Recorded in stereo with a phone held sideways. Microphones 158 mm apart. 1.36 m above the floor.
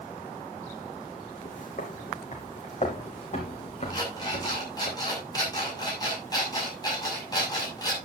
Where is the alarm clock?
25° left (ahead or behind), 6.5 m.